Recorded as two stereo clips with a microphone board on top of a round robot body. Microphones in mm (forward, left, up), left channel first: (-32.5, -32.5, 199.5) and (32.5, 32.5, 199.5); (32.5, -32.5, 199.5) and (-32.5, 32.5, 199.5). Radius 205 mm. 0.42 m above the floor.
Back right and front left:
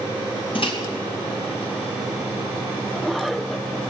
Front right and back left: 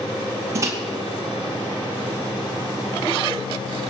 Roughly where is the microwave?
Behind.